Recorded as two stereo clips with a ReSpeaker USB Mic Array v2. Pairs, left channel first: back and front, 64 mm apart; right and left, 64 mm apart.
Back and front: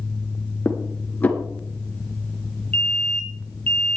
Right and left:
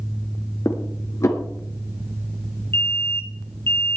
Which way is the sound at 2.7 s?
120° right.